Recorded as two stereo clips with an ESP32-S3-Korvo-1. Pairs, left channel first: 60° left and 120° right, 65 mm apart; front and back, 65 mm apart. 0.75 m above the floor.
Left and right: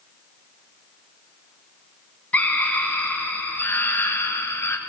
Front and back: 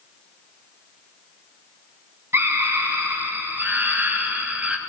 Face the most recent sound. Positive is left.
turn(degrees=110)